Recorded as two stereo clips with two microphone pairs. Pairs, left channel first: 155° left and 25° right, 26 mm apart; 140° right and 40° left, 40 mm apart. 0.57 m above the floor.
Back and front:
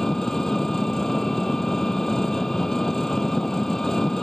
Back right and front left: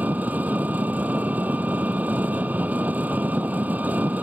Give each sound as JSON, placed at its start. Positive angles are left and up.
{"t": 0.0, "sound": "an engine running", "azimuth_deg": 90}